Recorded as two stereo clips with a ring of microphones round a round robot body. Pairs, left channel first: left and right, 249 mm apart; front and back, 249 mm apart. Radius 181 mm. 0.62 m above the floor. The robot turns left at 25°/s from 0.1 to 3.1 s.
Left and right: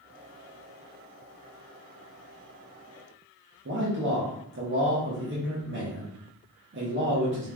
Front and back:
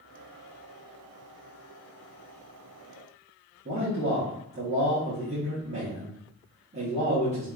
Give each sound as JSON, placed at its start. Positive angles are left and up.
{"t": 3.6, "sound": "a man speaking", "azimuth_deg": -120, "distance_m": 1.0}